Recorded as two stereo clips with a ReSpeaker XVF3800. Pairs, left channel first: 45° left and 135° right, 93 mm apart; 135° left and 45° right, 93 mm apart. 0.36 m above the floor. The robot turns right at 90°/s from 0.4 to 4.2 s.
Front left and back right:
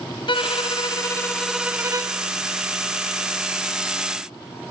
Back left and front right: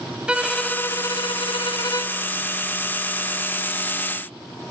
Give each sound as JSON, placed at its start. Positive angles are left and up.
{"t": 0.3, "sound": "a violin", "azimuth_deg": 35, "distance_m": 1.1}